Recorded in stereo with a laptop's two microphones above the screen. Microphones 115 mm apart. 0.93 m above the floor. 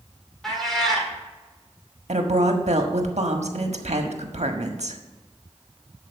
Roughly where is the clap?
No clap in this recording.